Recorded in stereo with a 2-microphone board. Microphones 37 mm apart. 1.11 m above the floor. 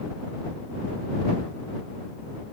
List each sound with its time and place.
Only background noise.